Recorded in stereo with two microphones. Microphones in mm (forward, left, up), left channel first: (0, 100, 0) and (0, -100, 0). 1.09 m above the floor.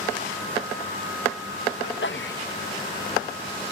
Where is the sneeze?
60° left (ahead or behind), 1.0 m.